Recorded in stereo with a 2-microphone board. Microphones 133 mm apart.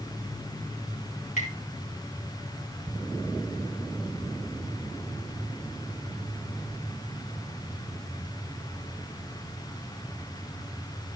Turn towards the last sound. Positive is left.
turn(degrees=75)  # may be behind; listen again after turning